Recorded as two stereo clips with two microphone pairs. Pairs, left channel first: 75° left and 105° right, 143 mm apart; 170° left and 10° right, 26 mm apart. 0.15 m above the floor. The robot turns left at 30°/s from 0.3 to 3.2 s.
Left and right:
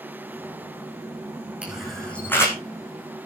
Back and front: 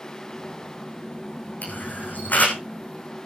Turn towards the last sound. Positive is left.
turn(degrees=125)